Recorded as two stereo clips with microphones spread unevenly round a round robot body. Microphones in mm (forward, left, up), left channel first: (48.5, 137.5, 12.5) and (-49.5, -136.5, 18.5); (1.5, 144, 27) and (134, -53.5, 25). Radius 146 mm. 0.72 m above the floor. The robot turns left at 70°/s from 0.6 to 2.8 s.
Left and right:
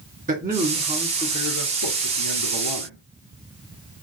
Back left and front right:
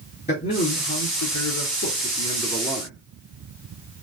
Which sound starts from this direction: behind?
A man speaking, at 0.3 s.